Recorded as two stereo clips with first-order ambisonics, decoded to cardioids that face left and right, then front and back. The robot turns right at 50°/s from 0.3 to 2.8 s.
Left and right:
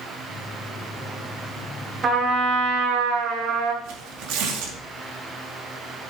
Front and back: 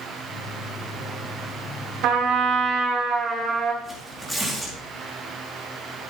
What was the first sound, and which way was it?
A trumpet, 145° right.